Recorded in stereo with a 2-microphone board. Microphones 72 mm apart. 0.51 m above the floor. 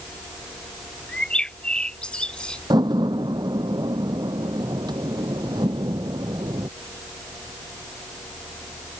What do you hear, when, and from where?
1.1 s a bird: 15° left (ahead or behind)
2.7 s a door slam: 80° right